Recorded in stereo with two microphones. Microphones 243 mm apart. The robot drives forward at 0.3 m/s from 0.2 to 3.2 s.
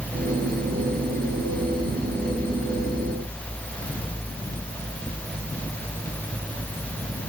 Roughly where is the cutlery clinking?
I don't hear cutlery clinking.